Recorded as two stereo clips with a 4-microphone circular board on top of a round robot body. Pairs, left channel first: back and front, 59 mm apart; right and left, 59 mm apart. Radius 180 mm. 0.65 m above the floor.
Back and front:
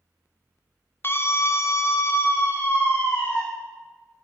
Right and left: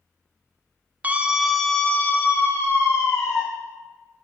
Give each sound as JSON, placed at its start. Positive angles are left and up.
{"t": 1.0, "sound": "a scream", "azimuth_deg": 145, "distance_m": 0.6}